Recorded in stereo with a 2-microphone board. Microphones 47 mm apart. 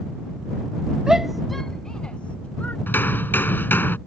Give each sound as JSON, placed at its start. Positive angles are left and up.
{"t": 1.1, "sound": "a shout", "side_deg": -15}
{"t": 2.9, "sound": "hammering", "side_deg": 45}